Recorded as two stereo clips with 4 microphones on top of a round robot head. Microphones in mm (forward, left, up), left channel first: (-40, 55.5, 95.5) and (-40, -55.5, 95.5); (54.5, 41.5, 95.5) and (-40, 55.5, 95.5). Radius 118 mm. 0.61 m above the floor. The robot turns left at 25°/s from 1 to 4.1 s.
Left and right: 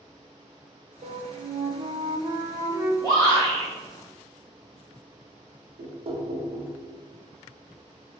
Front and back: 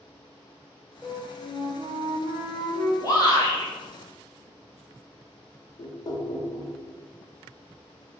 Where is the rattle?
I don't hear a rattle.